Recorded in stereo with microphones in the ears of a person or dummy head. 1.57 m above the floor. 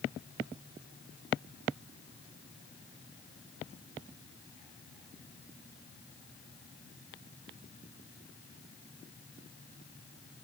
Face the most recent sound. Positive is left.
No sound to turn to.